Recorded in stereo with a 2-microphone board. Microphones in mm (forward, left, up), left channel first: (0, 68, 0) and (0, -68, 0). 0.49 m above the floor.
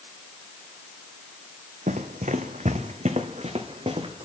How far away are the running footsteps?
About 1.2 m.